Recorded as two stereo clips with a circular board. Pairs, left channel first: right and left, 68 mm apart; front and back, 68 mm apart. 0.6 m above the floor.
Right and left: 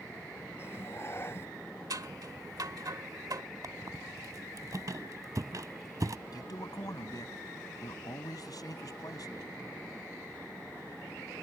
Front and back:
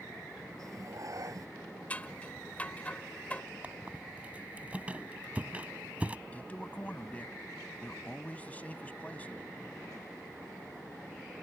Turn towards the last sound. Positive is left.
turn(degrees=-70)